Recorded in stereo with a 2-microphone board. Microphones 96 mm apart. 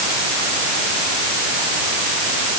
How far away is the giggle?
I don't hear a giggle.